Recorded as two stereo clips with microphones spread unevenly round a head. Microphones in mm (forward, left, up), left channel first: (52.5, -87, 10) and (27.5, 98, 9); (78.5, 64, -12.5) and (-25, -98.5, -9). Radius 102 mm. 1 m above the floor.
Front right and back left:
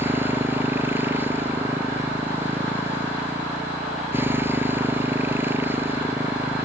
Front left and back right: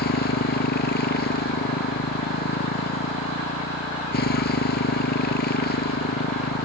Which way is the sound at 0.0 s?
20° left.